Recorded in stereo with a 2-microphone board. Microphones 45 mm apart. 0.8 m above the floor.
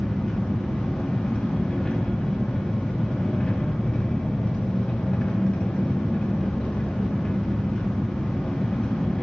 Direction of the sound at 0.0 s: 25° left (ahead or behind).